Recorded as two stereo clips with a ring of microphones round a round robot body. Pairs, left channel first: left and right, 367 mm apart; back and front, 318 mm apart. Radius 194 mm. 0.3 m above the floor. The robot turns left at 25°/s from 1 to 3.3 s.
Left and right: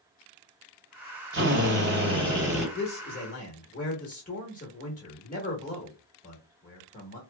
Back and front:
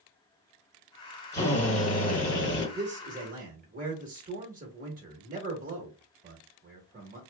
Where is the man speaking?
55° left, 1.0 m; by 7.2 s 40° left, 1.0 m.